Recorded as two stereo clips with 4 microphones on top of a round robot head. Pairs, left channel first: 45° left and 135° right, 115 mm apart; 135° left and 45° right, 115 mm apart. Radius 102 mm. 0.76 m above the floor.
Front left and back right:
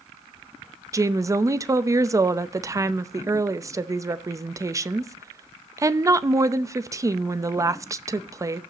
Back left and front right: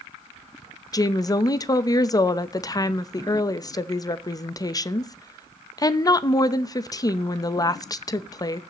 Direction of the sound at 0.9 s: 175° left.